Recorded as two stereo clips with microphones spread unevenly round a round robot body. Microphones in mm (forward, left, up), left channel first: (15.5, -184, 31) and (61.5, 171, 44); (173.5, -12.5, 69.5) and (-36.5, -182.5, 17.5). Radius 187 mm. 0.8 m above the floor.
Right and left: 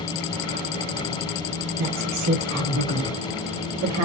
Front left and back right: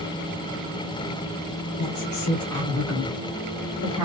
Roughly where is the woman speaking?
Ahead left.